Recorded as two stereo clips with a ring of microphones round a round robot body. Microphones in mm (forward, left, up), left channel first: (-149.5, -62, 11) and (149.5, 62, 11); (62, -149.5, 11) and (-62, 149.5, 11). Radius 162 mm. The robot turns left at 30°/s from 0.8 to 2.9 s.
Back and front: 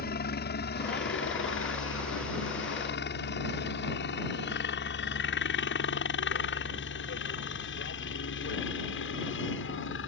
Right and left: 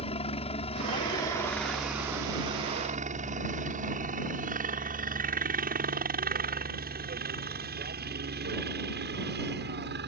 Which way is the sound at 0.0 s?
125° right.